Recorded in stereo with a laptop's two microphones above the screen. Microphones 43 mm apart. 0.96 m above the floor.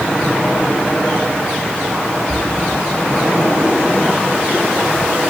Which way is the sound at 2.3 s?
40° right (ahead or behind).